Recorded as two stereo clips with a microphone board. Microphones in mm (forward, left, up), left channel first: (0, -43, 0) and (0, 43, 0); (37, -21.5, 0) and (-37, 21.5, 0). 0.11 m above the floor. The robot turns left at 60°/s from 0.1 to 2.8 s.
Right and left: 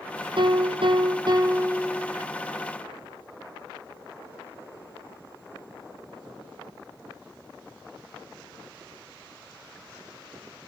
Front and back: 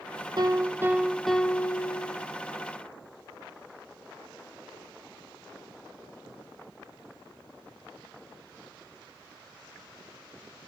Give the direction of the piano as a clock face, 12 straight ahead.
8 o'clock.